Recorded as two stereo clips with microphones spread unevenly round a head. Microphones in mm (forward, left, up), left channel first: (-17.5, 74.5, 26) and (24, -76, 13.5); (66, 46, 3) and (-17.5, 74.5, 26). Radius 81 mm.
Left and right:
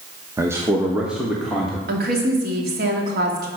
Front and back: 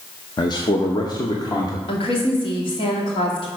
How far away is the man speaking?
About 0.9 m.